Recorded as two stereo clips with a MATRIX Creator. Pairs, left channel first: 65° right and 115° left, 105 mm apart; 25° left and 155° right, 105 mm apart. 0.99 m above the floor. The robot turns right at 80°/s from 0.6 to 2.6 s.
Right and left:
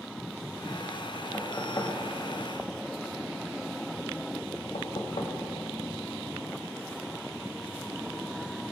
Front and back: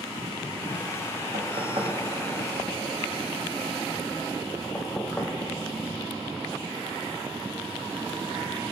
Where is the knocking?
155° right, 0.7 m; by 5.3 s 55° right, 0.7 m.